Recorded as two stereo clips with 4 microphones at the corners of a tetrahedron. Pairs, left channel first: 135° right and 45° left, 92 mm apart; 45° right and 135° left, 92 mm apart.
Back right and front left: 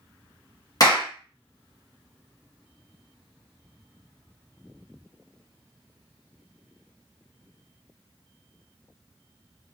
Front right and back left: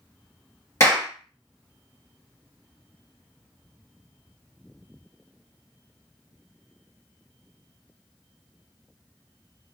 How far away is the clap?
About 1.8 m.